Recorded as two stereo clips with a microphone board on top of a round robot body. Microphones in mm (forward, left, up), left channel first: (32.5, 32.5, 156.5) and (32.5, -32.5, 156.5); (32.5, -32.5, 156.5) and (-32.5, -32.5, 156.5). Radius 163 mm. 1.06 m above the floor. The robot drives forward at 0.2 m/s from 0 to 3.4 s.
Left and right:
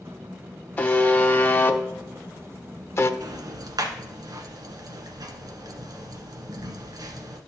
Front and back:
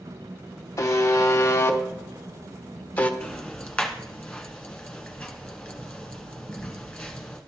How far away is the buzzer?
About 1.0 m.